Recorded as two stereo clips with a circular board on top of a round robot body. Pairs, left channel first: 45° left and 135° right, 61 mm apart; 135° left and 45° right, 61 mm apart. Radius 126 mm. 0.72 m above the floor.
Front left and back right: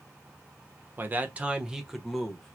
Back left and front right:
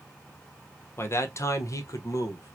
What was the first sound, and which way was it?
A man speaking, 175° left.